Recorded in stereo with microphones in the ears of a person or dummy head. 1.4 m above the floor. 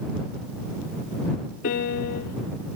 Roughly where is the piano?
Left.